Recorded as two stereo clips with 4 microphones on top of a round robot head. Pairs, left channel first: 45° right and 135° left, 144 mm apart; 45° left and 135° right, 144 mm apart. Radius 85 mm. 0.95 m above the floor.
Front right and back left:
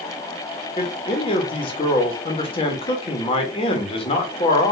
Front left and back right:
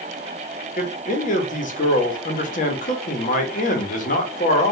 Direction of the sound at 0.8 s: 10° left.